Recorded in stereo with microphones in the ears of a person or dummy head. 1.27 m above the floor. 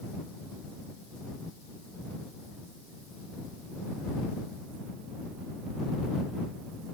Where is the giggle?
I don't hear a giggle.